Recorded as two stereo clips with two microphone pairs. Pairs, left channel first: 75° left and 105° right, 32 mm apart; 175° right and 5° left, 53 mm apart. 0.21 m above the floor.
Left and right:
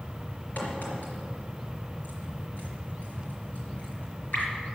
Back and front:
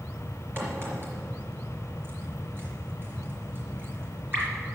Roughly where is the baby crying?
I don't hear a baby crying.